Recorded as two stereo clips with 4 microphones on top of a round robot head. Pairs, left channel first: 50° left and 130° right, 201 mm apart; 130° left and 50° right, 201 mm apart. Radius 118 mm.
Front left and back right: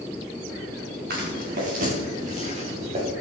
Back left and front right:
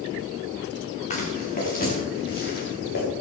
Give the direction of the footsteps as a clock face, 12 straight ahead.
6 o'clock.